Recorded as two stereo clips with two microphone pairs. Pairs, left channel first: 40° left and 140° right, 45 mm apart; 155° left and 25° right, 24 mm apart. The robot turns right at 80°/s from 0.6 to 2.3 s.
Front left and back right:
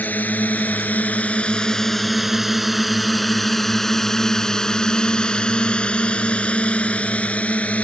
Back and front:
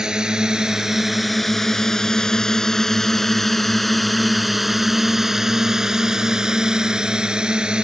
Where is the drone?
20° left; by 7.8 s straight ahead.